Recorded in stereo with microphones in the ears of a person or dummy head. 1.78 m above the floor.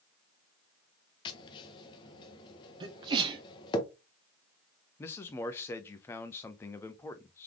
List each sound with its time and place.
1.2 s tapping: 25° left (ahead or behind), 0.8 m
2.8 s a sneeze: 30° right (ahead or behind), 1.1 m
5.0 s a man speaking: 15° left (ahead or behind), 0.6 m